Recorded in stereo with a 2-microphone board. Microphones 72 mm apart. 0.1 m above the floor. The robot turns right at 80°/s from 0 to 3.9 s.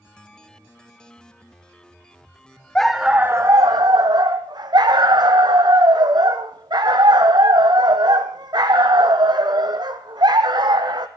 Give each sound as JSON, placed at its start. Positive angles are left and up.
{"t": 2.8, "sound": "a dog barking", "azimuth_deg": 170, "distance_m": 1.2}